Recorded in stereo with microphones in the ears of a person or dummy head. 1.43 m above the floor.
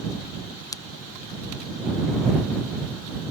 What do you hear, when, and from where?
0.7 s a pop: 15° left (ahead or behind)